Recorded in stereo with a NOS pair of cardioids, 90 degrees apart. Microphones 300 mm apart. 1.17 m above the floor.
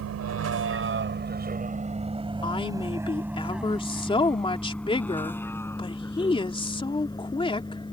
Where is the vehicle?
65° right; by 7.9 s 15° left.